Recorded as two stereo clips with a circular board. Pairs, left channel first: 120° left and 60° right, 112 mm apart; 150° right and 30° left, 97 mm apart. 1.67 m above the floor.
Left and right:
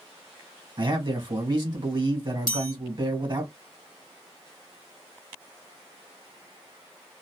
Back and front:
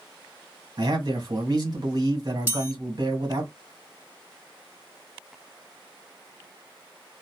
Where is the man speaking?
15° right, 1.4 m.